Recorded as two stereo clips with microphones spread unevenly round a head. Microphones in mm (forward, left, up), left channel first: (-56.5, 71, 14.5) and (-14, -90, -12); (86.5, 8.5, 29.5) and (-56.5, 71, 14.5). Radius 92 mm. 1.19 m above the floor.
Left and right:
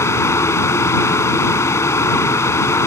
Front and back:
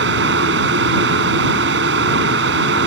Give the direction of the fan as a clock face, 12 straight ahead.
6 o'clock.